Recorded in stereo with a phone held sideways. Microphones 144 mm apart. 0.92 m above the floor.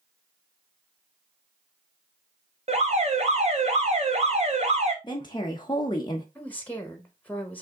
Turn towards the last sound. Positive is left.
turn(degrees=10)  # may be behind; listen again after turning